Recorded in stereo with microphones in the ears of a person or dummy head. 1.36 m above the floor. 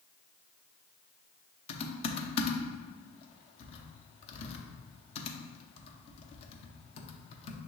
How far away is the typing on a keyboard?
About 0.7 m.